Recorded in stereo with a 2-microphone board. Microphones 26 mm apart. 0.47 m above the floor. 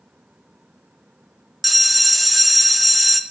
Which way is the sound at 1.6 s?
5° right (ahead or behind).